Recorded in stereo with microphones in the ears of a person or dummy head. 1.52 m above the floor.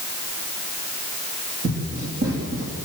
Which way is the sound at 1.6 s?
45° right (ahead or behind).